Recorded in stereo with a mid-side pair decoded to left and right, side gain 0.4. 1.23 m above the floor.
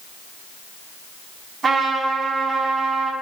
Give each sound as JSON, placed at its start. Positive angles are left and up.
{"t": 1.6, "sound": "a trumpet", "azimuth_deg": -45, "distance_m": 5.5}